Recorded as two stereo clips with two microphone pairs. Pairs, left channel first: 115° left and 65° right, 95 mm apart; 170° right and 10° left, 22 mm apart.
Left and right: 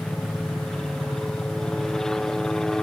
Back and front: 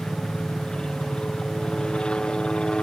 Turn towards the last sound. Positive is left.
turn(degrees=-165)